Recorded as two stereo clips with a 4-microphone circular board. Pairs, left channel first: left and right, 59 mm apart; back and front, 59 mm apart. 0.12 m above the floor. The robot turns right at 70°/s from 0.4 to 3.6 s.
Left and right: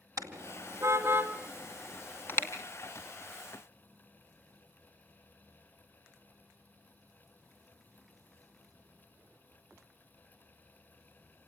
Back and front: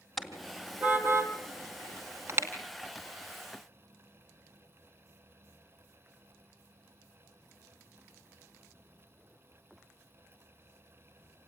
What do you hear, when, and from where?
0.2 s a car horn: 90° right, 2 m; by 2.5 s 55° left, 2 m